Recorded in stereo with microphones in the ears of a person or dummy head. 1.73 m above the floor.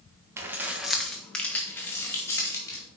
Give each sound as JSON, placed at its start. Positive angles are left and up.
{"t": 0.4, "sound": "keys jangling", "side_deg": -20, "distance_m": 1.1}